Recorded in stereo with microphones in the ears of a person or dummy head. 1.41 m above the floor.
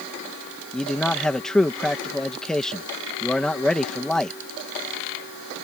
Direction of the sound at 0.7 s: 5° left (ahead or behind).